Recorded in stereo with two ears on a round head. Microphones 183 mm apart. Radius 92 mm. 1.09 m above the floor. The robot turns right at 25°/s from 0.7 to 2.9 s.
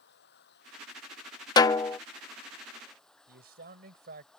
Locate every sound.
0.0 s running water: 120° left; by 4.4 s 175° left
1.6 s a snare drum: 20° left (ahead or behind); by 2.0 s 15° left (ahead or behind)
3.3 s a man speaking: 50° right (ahead or behind)